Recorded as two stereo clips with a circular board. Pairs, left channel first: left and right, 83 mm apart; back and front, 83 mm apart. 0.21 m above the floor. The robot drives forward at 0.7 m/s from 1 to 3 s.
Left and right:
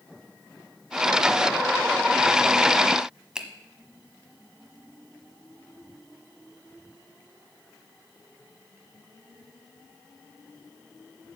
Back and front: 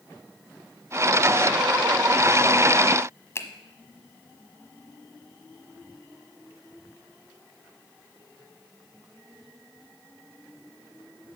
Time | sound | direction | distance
3.4 | a finger snap | 165° right | 1.1 m